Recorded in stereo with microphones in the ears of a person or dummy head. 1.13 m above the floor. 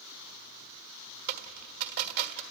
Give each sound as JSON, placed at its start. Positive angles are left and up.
{"t": 1.3, "sound": "a dropped coin", "side_deg": -55, "distance_m": 1.5}